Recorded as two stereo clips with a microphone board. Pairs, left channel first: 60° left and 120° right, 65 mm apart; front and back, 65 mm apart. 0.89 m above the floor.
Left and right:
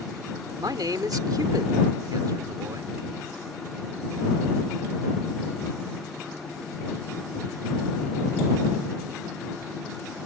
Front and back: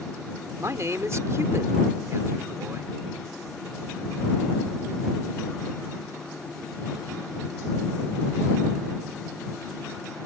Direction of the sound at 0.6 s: 135° right.